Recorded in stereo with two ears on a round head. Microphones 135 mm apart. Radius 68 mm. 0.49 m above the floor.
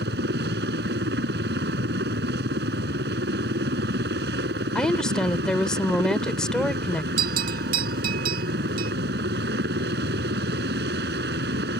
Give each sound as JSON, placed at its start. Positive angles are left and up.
{"t": 0.0, "sound": "a helicopter", "side_deg": -75}
{"t": 4.8, "sound": "a woman speaking", "side_deg": 5}
{"t": 7.2, "sound": "a bell", "side_deg": -60}